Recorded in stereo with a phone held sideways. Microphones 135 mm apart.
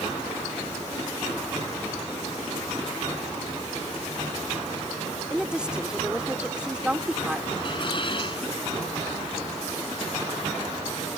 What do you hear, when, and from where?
5.3 s a woman speaking: 5° right (ahead or behind)
7.6 s dishes clattering: 40° left (ahead or behind)